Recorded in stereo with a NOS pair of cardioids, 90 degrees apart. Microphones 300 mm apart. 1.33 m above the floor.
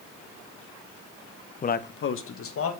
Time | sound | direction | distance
1.6 | a man speaking | 25° left | 0.5 m